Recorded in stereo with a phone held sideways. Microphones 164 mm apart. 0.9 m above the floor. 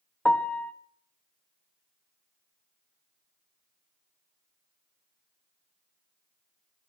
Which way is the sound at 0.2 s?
10° left (ahead or behind).